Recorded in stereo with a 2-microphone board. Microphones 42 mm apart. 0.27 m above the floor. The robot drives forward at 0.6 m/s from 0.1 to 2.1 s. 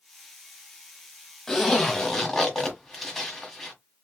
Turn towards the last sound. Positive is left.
turn(degrees=5)  # may be behind; listen again after turning